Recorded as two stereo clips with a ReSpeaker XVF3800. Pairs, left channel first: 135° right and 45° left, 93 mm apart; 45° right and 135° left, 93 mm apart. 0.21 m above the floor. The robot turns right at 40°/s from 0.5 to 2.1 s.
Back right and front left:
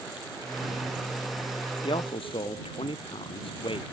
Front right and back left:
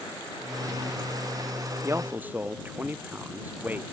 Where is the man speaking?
165° right; by 3.8 s 155° right.